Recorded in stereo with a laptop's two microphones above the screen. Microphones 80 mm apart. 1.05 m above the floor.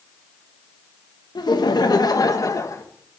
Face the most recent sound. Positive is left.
turn(degrees=40)  # may be behind; listen again after turning